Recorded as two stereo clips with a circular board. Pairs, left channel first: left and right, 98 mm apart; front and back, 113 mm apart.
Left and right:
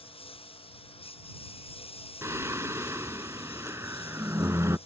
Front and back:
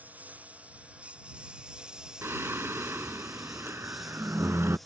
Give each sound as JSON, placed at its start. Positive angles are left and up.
{"t": 0.0, "sound": "a lawn mower", "azimuth_deg": 105}
{"t": 2.2, "sound": "singing", "azimuth_deg": -125}